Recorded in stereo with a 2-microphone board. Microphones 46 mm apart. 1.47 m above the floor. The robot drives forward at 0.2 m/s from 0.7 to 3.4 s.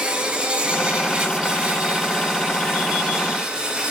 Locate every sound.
0.0 s an insect: 15° right (ahead or behind), 2.0 m